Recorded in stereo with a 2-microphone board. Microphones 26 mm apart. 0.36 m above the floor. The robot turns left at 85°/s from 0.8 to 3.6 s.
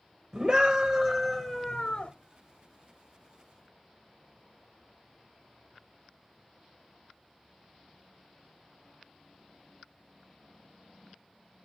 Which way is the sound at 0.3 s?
150° right.